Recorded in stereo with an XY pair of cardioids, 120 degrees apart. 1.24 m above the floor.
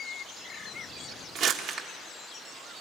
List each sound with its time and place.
1.4 s crumpling: 70° right, 1.3 m